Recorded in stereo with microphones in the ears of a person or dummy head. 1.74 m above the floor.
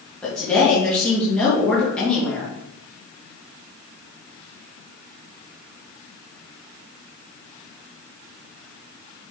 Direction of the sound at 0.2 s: 10° left (ahead or behind).